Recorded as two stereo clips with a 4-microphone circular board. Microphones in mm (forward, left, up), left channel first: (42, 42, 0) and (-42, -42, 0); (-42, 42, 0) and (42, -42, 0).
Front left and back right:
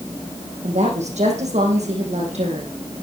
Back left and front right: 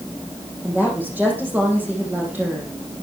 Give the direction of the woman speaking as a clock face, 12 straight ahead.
4 o'clock.